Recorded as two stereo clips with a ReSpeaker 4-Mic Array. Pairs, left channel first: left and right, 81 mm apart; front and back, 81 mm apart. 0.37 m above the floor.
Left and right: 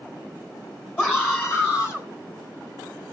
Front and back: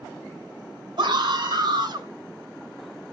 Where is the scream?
155° left, 3.5 m; by 2.1 s 145° left, 3.5 m.